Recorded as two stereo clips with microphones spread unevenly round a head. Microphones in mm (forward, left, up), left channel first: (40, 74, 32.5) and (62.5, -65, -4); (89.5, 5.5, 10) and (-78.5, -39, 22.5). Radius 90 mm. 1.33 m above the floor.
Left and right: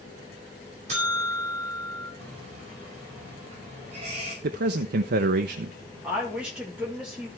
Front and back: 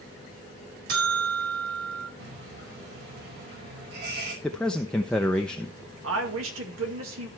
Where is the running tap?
140° right, 5 m.